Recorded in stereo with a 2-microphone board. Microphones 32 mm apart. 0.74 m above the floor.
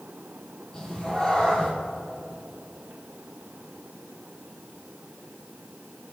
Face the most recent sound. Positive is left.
turn(degrees=20)  # may be behind; listen again after turning